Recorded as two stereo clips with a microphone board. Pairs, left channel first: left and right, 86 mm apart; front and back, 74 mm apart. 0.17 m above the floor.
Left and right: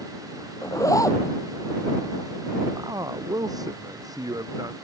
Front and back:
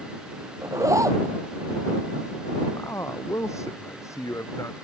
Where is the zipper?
140° left.